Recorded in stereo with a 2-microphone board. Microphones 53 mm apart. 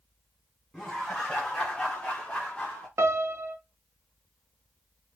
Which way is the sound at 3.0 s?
55° right (ahead or behind).